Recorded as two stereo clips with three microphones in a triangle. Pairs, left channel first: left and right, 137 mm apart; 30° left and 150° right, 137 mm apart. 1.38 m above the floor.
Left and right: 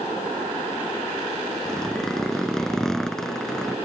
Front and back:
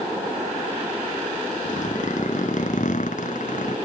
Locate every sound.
1.6 s a zipper: 5° left